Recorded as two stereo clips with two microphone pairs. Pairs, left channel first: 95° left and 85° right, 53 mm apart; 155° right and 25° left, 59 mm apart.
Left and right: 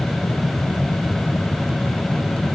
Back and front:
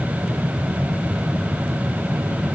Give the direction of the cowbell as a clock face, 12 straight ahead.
I don't hear a cowbell.